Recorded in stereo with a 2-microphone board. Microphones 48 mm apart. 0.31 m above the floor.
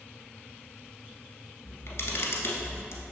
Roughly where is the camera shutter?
Left.